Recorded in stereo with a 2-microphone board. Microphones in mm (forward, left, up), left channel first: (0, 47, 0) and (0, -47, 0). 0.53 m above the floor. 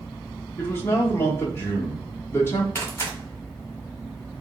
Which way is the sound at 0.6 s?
25° left (ahead or behind).